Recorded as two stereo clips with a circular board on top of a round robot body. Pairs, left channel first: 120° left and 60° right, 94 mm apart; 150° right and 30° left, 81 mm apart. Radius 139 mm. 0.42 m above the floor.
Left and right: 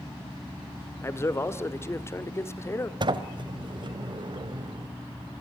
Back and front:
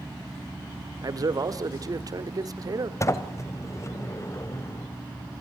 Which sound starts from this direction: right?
A sliding door, at 3.0 s.